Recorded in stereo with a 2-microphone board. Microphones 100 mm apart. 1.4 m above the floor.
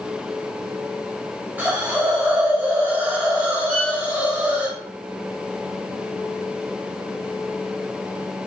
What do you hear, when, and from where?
1.6 s a hiss: 20° right (ahead or behind), 1.2 m
3.7 s a violin: 5° left (ahead or behind), 1.5 m